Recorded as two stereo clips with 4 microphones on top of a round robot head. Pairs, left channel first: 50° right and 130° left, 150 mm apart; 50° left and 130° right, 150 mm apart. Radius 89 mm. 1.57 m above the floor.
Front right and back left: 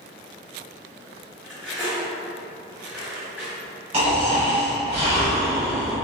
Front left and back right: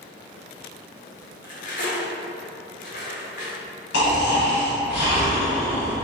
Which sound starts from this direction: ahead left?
Cutlery clinking, at 1.4 s.